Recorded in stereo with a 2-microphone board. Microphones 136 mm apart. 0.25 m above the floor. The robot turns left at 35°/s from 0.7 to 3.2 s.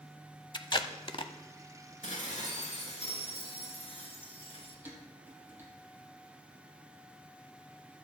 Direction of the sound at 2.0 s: 95° left.